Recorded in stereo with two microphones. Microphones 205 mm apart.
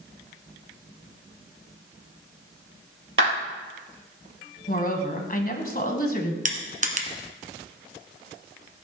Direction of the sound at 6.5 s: 35° right (ahead or behind).